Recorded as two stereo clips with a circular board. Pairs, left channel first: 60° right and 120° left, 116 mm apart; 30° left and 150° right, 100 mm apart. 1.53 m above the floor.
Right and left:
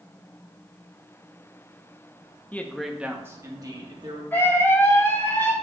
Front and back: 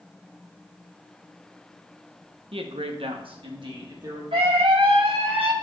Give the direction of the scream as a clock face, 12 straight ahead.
4 o'clock.